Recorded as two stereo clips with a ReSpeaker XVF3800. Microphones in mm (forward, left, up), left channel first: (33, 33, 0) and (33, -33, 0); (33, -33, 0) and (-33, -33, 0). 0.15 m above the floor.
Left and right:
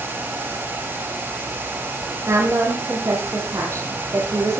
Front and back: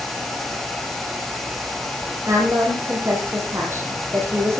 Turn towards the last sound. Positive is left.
turn(degrees=-135)